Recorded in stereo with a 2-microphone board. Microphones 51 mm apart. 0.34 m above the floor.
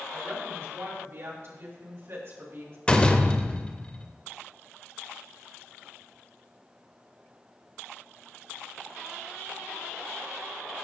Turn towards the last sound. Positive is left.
turn(degrees=20)  # may be behind; listen again after turning